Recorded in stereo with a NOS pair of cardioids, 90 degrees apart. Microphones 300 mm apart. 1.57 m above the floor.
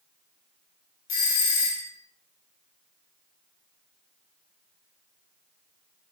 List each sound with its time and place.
1.1 s a doorbell: 60° left, 2 m